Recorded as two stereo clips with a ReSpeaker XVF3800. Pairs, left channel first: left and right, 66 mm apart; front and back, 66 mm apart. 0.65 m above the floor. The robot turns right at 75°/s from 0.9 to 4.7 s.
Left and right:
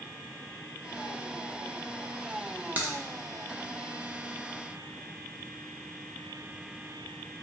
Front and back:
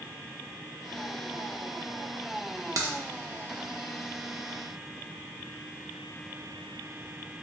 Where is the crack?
150° right, 0.6 m; by 2.9 s 135° right, 0.6 m.